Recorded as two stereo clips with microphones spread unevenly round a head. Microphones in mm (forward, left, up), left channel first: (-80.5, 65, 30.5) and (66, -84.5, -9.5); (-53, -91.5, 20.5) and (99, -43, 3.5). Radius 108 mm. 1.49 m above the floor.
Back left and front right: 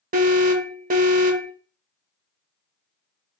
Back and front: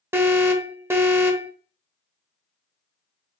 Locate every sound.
0.1 s an alarm: 45° right, 0.8 m